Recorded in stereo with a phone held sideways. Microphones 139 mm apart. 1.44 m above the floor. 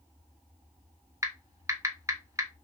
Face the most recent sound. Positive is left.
turn(degrees=-20)  # may be behind; listen again after turning